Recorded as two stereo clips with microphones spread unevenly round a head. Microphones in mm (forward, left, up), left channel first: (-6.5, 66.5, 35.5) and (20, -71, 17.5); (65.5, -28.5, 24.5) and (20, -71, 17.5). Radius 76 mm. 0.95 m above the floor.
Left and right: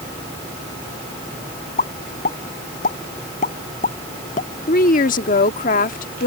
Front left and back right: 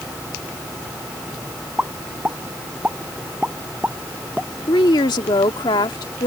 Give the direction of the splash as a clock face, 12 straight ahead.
No splash in this recording.